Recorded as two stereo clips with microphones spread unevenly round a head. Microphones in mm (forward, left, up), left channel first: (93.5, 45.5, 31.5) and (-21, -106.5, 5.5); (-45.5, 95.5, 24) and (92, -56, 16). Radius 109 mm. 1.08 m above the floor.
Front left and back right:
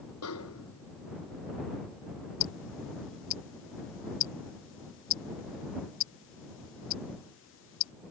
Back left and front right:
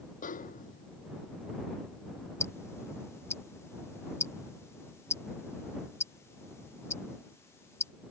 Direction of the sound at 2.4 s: 55° left.